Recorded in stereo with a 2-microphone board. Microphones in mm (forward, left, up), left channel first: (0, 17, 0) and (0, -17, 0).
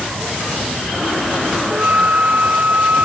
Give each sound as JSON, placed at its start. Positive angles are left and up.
{"t": 1.7, "sound": "a flute", "side_deg": -50}